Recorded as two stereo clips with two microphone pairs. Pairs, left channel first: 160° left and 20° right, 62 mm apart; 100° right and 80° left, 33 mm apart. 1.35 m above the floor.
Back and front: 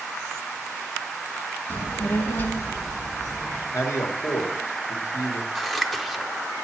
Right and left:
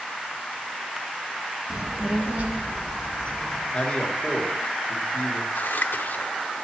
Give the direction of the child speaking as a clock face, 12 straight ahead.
7 o'clock.